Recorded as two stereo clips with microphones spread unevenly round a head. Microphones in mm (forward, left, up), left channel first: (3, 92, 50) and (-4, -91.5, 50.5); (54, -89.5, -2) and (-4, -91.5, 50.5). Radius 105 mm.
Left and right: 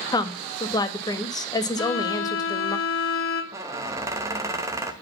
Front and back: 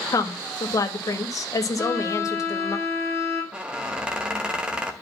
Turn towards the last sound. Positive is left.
turn(degrees=-165)